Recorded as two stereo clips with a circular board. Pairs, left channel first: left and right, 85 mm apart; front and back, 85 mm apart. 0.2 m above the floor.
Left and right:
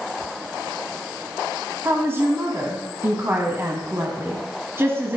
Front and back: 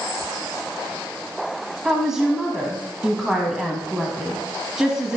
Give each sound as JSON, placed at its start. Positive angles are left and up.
{"t": 1.9, "sound": "a woman speaking", "azimuth_deg": -100, "distance_m": 1.1}